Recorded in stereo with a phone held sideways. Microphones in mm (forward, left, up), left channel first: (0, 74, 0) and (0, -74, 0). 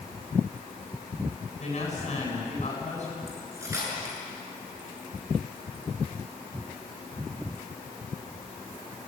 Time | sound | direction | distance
1.6 | a woman speaking | 50° left (ahead or behind) | 9.5 m
3.3 | cutlery clinking | 20° right (ahead or behind) | 7.5 m